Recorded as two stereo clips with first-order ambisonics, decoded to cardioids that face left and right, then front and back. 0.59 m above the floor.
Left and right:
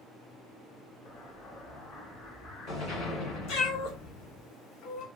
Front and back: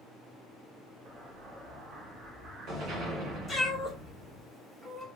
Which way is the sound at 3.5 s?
85° left.